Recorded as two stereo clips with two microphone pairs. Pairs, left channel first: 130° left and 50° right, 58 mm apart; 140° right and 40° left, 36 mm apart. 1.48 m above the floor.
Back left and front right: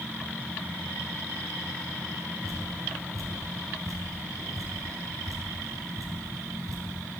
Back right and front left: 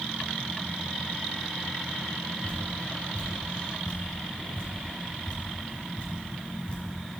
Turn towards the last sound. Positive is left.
turn(degrees=-80)